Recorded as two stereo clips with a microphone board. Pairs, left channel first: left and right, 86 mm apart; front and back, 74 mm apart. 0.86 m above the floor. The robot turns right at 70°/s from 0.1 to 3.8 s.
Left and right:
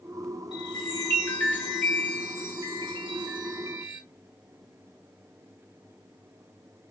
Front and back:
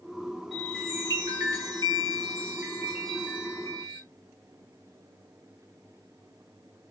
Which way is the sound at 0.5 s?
95° left.